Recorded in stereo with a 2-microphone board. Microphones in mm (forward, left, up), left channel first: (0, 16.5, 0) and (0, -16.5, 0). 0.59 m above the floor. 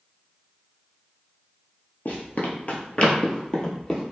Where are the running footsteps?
55° left (ahead or behind), 0.9 m; by 4.0 s 10° left (ahead or behind), 1.1 m.